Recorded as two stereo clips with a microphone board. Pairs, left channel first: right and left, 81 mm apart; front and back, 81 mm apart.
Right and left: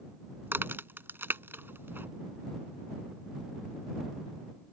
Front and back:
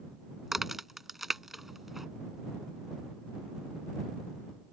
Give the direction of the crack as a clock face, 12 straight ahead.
9 o'clock.